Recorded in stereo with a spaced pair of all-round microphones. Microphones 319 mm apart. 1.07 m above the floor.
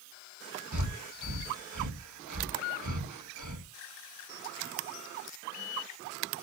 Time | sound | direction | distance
0.7 | breathing | 65° right (ahead or behind) | 1.5 m